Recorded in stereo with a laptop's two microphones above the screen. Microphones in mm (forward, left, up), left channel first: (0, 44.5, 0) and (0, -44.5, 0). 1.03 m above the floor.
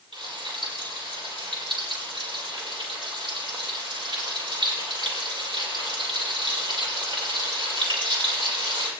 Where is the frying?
65° right (ahead or behind), 6.5 m.